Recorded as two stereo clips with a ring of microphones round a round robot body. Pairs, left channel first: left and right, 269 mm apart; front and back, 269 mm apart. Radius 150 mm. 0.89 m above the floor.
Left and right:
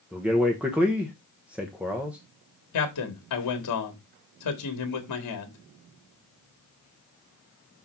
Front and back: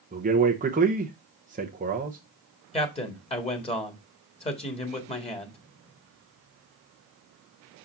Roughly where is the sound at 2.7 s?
Left.